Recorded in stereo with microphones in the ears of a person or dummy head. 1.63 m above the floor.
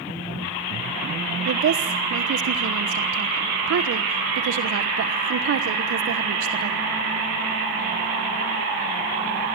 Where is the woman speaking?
80° right, 1.2 m.